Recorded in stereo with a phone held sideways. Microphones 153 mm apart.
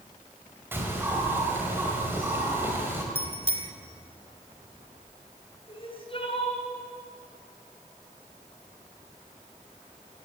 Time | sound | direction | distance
0.7 | a bird | 15° right (ahead or behind) | 5 m
3.1 | a bicycle bell | 40° left (ahead or behind) | 3 m
5.7 | crying | 35° left (ahead or behind) | 4.5 m